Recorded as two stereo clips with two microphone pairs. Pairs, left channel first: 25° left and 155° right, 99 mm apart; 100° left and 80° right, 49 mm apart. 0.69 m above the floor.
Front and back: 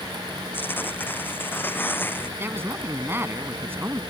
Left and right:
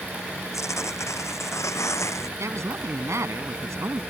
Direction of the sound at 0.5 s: 95° left.